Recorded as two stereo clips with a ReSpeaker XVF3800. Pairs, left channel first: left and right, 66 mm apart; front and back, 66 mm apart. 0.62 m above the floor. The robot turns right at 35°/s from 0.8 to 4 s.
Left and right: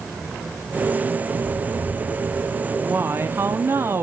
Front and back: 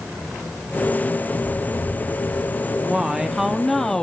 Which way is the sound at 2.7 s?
120° right.